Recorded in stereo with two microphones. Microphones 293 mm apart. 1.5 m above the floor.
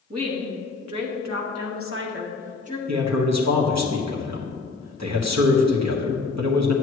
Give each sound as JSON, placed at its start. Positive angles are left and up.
{"t": 0.1, "sound": "a woman speaking", "side_deg": -65, "distance_m": 1.7}
{"t": 2.9, "sound": "a man speaking", "side_deg": -75, "distance_m": 1.3}